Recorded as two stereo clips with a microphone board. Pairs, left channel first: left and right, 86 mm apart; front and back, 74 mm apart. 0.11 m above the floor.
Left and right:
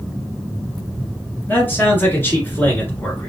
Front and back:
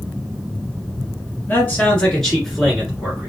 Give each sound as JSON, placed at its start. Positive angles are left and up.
{"t": 1.5, "sound": "a man speaking", "azimuth_deg": 45, "distance_m": 1.8}